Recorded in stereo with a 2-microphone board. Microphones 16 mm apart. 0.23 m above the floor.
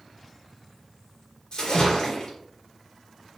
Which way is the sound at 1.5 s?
55° left (ahead or behind).